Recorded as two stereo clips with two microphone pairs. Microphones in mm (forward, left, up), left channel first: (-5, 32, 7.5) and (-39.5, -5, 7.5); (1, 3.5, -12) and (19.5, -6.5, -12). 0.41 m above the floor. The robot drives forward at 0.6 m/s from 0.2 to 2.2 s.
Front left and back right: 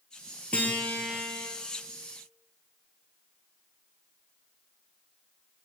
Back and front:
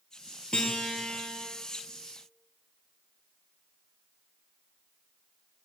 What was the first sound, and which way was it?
A guitar, 105° left.